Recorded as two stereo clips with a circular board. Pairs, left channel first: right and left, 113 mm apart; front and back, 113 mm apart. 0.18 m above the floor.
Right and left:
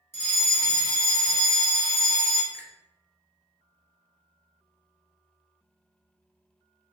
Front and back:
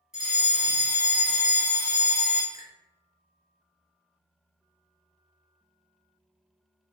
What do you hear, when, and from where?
0.1 s a fire alarm: 105° right, 2.0 m
2.5 s a finger snap: 160° right, 1.4 m